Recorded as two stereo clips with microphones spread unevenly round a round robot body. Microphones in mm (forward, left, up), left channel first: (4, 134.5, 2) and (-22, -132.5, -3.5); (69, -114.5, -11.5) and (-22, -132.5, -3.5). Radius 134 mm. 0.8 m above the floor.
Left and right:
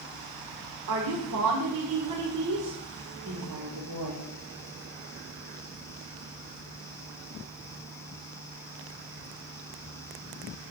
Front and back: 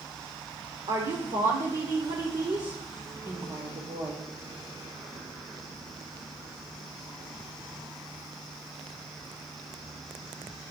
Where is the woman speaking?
130° right, 2.5 m.